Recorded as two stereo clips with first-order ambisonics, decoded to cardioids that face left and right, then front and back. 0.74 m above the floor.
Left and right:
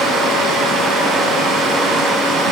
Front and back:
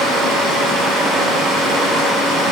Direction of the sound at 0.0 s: 145° right.